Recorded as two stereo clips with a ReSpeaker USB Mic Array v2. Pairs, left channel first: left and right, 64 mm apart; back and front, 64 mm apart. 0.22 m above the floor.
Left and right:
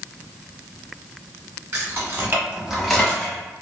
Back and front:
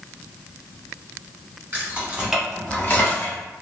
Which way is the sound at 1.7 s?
50° right.